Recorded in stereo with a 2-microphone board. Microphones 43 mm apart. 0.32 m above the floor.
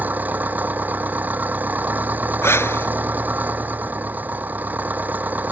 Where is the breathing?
80° left.